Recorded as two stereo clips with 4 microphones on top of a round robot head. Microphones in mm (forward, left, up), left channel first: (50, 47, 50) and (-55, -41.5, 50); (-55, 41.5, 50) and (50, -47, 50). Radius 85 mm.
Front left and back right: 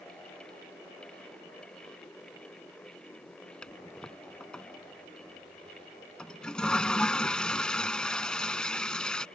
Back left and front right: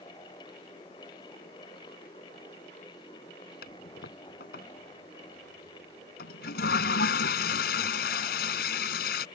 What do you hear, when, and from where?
3.6 s a toilet flushing: 125° left